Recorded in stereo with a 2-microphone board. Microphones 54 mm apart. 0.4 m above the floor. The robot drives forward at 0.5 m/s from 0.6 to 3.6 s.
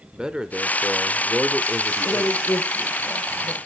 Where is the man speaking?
15° right (ahead or behind), 0.9 m.